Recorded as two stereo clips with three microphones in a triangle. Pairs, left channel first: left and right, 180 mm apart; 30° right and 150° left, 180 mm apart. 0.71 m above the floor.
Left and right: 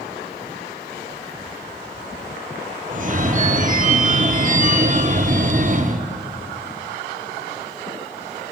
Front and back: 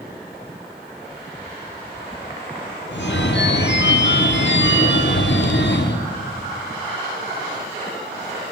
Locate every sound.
2.9 s a phone ringing: 45° right, 0.8 m